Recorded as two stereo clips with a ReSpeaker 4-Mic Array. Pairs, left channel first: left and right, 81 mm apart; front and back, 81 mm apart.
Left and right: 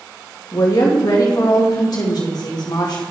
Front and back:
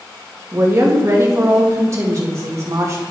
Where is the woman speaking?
125° left, 1.6 m.